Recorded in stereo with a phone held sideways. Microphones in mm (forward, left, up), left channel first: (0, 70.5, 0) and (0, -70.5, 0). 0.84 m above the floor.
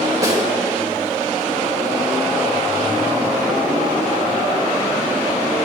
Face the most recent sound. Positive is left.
turn(degrees=-25)  # may be behind; listen again after turning